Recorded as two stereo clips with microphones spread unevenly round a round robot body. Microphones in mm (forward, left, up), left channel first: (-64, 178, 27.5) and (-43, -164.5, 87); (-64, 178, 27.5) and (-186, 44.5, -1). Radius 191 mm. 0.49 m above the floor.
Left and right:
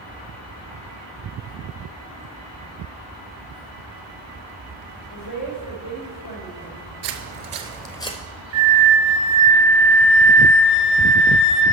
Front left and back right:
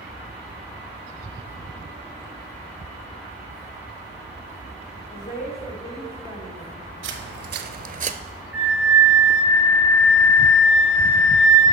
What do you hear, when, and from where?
5.1 s a woman speaking: 80° left, 2.5 m
7.0 s footsteps: 115° right, 0.8 m; by 8.2 s 170° left, 0.7 m
8.5 s a flute: 40° right, 1.1 m